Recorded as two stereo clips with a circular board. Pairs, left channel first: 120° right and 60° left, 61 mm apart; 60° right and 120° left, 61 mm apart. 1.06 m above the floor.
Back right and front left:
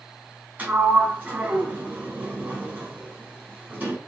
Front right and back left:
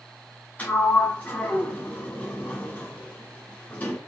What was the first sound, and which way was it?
A sliding door, 5° left.